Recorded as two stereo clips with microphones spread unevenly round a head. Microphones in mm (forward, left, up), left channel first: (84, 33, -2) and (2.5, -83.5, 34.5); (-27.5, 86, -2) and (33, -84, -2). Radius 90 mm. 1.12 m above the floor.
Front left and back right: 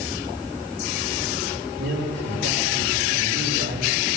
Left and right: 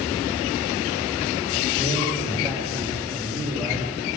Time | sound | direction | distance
1.8 | a man speaking | 140° right | 5.5 m